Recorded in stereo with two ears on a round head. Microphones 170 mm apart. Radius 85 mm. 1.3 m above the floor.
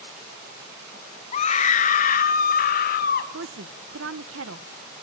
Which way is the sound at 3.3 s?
65° right (ahead or behind).